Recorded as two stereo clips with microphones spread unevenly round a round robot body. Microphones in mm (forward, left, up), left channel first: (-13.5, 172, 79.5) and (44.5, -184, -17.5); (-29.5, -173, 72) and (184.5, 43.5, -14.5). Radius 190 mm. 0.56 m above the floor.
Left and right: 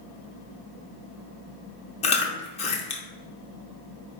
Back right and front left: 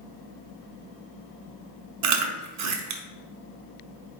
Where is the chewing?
20° left, 0.7 m.